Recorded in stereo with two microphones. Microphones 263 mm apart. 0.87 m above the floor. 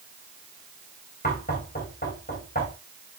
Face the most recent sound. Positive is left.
turn(degrees=35)  # may be behind; listen again after turning